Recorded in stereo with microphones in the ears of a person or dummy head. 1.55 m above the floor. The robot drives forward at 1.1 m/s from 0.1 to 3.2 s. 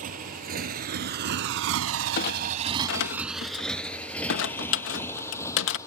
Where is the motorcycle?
40° right (ahead or behind); by 5.9 s 15° left (ahead or behind).